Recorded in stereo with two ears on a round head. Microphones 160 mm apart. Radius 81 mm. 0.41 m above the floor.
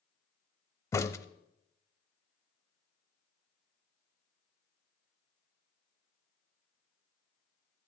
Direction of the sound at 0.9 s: 15° left (ahead or behind).